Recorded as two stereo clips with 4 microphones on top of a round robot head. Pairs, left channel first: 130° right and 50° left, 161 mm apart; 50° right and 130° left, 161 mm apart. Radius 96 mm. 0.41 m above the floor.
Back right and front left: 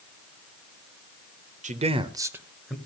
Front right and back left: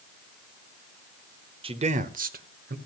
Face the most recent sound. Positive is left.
turn(degrees=145)